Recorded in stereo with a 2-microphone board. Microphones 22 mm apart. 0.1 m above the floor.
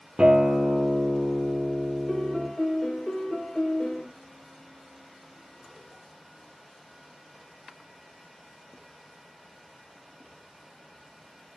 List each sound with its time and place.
0.2 s a guitar: 50° right (ahead or behind), 0.8 m
2.1 s a piano: 30° left (ahead or behind), 1.3 m